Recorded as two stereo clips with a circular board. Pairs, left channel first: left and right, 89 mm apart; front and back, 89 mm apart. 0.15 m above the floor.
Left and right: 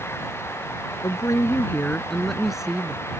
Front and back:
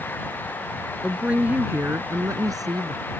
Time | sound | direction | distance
1.0 | a woman speaking | 100° left | ?